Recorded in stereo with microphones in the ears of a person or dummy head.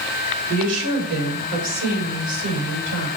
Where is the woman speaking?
75° right (ahead or behind), 4 m; by 3.1 s 65° right (ahead or behind), 6 m.